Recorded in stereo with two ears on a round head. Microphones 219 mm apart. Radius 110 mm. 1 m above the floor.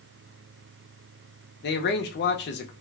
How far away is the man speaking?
About 0.6 m.